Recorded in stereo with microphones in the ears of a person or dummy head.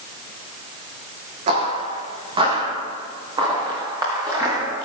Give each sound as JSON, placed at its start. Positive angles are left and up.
{"t": 1.5, "sound": "footsteps", "side_deg": -40, "distance_m": 4.0}